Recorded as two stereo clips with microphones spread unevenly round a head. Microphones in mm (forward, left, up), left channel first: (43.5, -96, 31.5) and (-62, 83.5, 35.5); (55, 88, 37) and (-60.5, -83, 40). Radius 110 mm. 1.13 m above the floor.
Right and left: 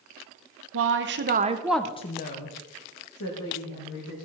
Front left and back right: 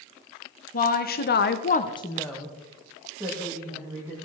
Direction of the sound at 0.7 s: 105° left.